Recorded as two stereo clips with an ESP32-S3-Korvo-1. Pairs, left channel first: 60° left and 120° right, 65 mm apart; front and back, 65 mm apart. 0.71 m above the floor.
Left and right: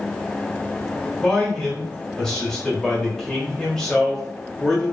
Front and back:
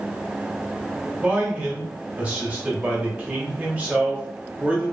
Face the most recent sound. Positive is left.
turn(degrees=135)